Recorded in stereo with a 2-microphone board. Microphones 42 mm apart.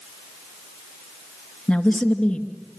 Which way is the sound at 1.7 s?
35° left (ahead or behind).